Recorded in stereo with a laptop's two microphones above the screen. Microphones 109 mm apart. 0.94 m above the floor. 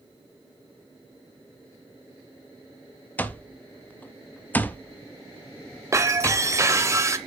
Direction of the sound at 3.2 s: 15° left (ahead or behind).